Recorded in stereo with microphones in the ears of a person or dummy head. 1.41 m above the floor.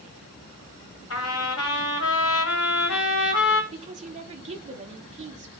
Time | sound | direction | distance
1.1 | a trumpet | 75° left (ahead or behind) | 1.7 m
3.7 | a woman speaking | 30° right (ahead or behind) | 1.4 m